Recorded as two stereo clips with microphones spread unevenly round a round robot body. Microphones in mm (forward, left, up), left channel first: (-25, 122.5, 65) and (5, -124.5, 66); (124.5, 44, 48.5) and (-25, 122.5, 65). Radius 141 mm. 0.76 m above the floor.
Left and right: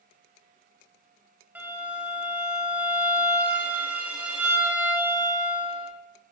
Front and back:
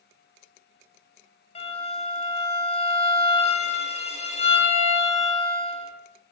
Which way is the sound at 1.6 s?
Straight ahead.